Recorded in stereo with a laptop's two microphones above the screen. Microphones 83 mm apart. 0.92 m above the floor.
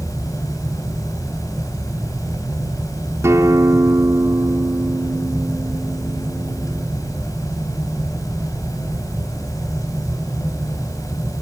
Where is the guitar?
35° right (ahead or behind), 4 m.